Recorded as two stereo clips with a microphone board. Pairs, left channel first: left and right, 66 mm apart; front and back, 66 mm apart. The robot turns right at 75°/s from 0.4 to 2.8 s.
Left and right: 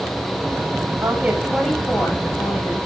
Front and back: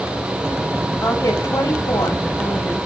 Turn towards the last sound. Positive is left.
turn(degrees=90)